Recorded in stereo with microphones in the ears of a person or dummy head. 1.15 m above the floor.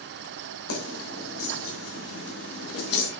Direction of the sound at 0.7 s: 85° left.